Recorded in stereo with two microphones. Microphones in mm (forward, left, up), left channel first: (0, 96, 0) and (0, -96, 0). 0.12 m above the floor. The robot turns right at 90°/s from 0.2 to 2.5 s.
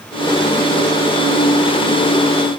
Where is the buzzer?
I don't hear a buzzer.